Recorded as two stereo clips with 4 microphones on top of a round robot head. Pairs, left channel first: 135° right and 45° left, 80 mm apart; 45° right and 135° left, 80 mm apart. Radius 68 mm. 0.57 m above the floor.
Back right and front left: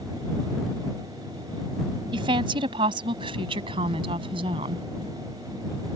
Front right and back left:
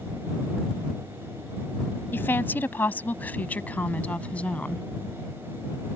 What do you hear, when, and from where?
2.1 s a woman speaking: 20° left; by 4.8 s 30° left